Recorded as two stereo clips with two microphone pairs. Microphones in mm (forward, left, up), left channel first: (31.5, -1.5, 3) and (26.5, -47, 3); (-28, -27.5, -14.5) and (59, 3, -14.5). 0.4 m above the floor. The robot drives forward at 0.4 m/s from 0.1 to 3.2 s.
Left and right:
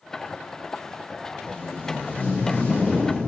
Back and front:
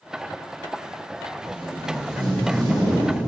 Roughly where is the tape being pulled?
Ahead left.